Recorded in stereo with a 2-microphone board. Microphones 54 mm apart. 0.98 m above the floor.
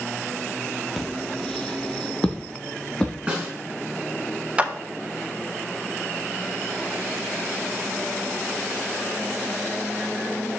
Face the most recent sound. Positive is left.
turn(degrees=-20)  # may be behind; listen again after turning